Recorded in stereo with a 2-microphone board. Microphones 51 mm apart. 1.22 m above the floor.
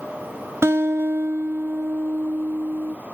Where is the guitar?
60° right (ahead or behind), 0.9 m.